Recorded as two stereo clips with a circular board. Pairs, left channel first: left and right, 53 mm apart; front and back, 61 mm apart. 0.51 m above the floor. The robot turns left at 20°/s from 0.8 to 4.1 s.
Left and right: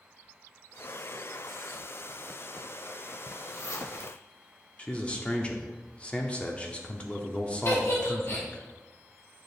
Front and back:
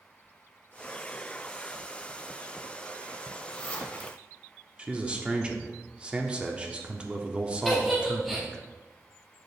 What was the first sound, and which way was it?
A zipper, 80° left.